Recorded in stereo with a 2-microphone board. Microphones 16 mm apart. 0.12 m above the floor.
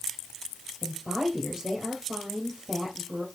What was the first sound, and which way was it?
A woman speaking, 30° right (ahead or behind).